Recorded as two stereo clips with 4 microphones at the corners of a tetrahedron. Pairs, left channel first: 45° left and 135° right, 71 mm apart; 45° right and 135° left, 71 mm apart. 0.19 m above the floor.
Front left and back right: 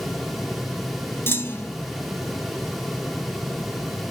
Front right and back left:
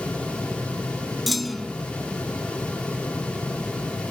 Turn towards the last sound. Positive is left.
turn(degrees=45)